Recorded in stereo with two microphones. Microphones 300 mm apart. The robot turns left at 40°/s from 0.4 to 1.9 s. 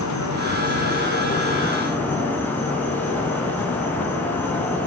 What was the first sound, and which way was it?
An insect, 65° left.